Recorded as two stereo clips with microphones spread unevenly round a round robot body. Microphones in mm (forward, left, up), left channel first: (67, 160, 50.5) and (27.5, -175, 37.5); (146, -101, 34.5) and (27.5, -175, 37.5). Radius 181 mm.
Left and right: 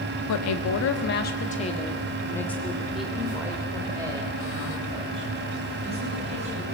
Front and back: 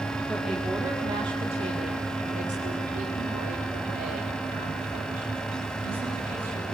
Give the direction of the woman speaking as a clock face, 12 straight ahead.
8 o'clock.